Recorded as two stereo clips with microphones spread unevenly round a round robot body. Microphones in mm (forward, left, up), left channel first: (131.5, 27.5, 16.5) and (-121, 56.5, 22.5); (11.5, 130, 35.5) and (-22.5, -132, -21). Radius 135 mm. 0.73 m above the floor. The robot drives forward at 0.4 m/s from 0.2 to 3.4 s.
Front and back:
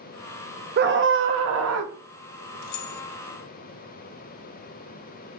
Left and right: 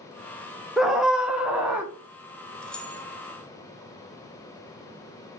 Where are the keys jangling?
5° right, 0.7 m; by 3.0 s 10° right, 0.5 m.